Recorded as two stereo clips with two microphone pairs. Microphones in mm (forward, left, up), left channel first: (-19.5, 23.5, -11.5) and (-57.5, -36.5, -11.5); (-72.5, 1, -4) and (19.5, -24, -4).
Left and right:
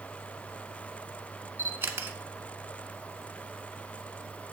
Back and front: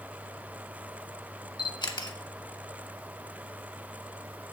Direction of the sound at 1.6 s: 175° right.